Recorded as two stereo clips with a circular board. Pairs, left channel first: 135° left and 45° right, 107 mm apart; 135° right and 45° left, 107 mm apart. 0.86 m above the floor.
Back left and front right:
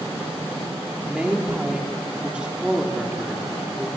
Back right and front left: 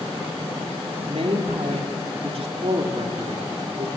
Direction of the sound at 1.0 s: 35° left.